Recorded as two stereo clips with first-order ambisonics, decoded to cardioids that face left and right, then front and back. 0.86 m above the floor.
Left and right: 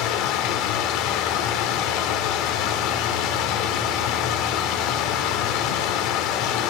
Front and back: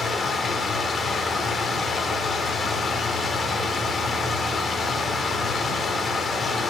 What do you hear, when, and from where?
0.0 s running water: 70° left, 0.9 m